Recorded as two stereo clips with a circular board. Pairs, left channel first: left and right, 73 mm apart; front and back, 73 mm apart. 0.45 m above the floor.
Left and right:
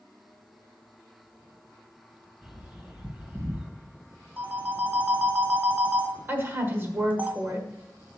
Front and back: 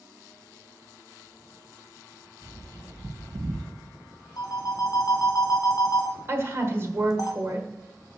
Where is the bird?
175° right, 3.5 m.